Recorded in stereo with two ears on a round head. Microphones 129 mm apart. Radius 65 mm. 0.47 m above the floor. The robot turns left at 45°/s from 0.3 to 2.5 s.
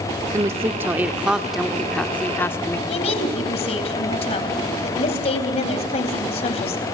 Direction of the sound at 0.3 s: 25° right (ahead or behind).